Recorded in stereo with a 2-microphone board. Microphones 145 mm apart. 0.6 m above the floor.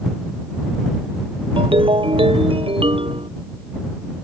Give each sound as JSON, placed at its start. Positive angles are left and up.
{"t": 1.6, "sound": "a ringtone", "side_deg": -35}